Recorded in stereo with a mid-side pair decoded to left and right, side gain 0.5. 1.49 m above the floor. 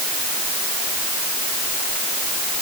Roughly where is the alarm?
No alarm in this recording.